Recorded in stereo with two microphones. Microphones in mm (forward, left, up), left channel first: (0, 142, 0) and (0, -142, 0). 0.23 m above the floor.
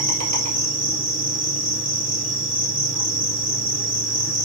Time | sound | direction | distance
0.0 | an insect | 65° right (ahead or behind) | 1.9 m